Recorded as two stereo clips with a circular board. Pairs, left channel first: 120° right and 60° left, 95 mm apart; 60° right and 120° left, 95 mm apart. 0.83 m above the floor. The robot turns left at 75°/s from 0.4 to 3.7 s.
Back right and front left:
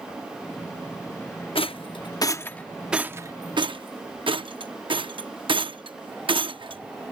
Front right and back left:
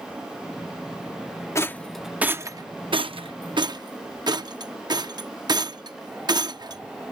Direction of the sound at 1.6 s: 120° right.